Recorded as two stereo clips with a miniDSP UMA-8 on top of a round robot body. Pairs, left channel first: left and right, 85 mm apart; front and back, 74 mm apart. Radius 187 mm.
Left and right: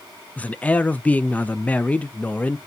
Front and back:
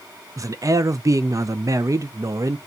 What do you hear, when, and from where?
0.4 s a man speaking: 160° left, 0.5 m